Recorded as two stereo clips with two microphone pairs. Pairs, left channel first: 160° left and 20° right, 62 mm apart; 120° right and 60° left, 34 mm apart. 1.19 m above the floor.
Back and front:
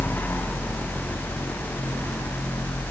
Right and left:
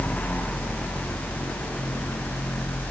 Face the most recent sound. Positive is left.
No sound to turn to.